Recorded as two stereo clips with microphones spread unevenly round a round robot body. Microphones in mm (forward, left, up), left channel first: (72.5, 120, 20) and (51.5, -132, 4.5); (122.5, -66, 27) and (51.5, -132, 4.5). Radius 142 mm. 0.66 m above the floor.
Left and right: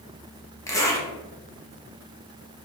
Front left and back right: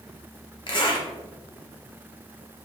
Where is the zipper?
5° left, 0.9 m.